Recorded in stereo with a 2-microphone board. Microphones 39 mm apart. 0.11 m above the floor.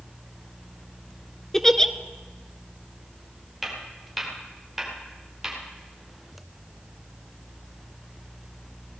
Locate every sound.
1.5 s a giggle: 15° left (ahead or behind), 0.6 m
3.6 s footsteps: centre (ahead or behind), 5 m; by 5.6 s 15° right (ahead or behind), 5.5 m